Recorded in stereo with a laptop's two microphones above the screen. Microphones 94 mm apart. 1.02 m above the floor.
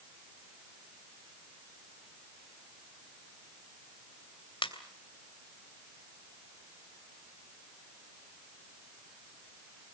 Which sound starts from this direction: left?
A ringtone, at 4.6 s.